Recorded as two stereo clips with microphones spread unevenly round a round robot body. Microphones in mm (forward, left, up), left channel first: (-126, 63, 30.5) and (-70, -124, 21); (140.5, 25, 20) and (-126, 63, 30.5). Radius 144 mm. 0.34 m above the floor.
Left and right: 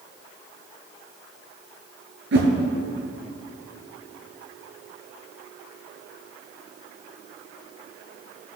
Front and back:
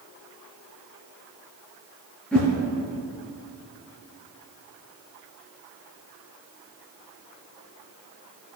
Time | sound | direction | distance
2.3 | a whoosh | 95° right | 1.8 m